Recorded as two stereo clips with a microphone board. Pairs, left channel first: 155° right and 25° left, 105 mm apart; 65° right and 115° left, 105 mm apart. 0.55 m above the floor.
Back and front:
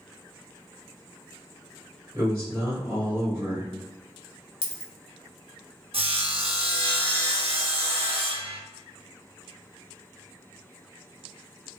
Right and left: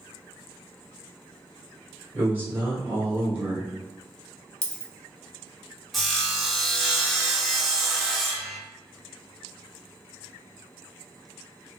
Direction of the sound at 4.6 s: 145° right.